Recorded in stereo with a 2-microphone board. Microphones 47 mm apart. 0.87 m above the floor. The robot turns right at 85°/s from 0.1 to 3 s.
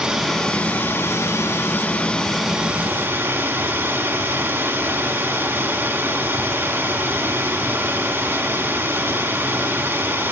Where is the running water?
10° right, 1.9 m; by 10.3 s 120° right, 1.9 m.